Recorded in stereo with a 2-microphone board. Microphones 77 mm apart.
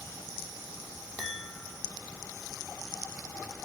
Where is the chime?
Centre (ahead or behind), 5 m.